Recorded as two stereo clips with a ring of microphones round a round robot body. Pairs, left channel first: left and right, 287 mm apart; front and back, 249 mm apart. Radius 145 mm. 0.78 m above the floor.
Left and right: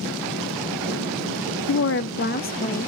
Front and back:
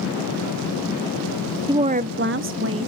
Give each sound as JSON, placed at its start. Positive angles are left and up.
{"t": 1.7, "sound": "a woman speaking", "azimuth_deg": 110, "distance_m": 0.5}